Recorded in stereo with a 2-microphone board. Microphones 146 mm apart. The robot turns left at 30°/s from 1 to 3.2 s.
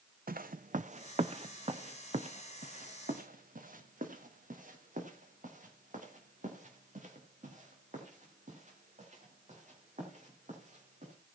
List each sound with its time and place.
0.3 s footsteps: 80° right, 0.8 m; by 11.1 s 55° right (ahead or behind), 7.5 m